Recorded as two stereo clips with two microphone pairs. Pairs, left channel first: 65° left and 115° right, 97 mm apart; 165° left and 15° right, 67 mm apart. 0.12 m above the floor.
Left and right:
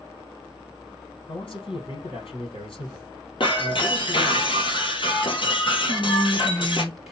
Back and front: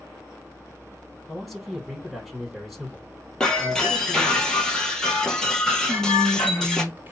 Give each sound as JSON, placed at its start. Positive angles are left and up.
{"t": 1.3, "sound": "a man speaking", "azimuth_deg": 75, "distance_m": 3.5}
{"t": 3.4, "sound": "breaking glass", "azimuth_deg": 85, "distance_m": 1.6}
{"t": 5.8, "sound": "whispering", "azimuth_deg": -30, "distance_m": 1.2}